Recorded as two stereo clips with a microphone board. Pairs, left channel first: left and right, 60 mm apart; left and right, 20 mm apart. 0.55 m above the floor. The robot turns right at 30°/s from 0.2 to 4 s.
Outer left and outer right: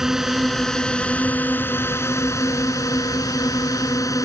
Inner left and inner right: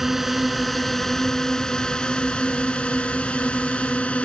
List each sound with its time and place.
0.0 s a drone: 10° right; by 4.2 s 105° left